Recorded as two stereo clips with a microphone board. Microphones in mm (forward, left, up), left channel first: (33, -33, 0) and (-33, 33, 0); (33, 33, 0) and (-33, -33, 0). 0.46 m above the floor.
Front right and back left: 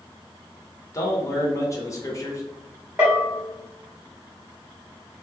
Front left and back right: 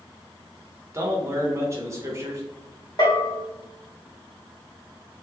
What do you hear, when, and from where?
0.9 s a man speaking: 90° right, 1.0 m
3.0 s a bell: 65° left, 1.7 m